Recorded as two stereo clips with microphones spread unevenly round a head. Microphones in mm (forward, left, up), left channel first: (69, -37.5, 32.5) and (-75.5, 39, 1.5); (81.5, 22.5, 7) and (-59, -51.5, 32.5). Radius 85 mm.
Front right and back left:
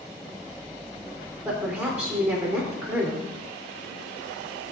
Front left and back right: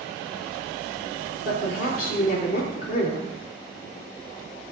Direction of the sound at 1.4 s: 70° left.